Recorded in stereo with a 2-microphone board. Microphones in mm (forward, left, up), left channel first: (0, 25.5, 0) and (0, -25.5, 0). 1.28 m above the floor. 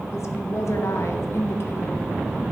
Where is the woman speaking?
60° left (ahead or behind), 1.2 m; by 2.0 s 45° left (ahead or behind), 1.0 m.